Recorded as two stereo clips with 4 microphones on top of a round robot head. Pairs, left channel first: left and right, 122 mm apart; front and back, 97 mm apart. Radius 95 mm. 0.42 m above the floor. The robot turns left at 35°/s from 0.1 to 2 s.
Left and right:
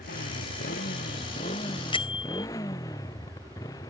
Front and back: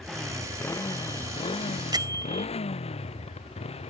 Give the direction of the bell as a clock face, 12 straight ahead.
7 o'clock.